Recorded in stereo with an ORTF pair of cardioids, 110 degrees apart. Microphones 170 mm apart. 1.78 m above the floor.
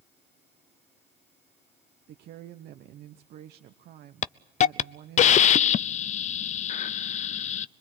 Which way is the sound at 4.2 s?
45° left.